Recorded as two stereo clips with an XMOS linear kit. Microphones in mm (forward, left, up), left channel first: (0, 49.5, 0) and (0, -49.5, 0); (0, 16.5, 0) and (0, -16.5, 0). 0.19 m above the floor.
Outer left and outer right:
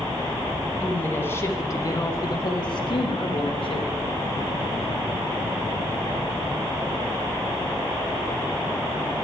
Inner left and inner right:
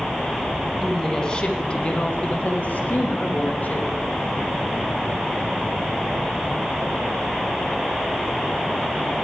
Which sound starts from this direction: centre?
A woman speaking, at 0.8 s.